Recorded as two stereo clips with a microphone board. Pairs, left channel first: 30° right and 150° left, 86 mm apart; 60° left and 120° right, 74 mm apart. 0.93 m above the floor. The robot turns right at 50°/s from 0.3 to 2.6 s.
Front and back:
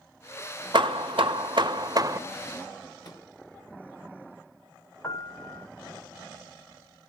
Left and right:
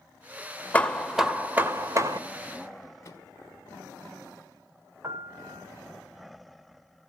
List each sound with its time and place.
0.7 s hammering: 130° left, 1.7 m; by 2.2 s 155° right, 1.7 m
3.0 s a microwave: 10° left, 5 m
5.0 s a piano: 80° right, 1.3 m